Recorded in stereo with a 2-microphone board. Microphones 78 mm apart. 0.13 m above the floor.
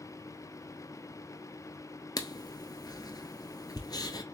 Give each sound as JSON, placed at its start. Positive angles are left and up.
{"t": 2.2, "sound": "writing", "side_deg": 55, "distance_m": 0.7}